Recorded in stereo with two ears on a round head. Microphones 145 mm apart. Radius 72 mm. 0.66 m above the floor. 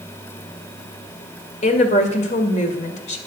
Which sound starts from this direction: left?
A woman speaking, at 1.6 s.